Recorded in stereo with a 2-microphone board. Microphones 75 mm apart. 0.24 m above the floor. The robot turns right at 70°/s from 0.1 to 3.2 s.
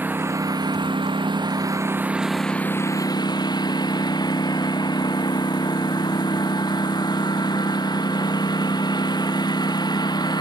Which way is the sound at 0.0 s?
160° right.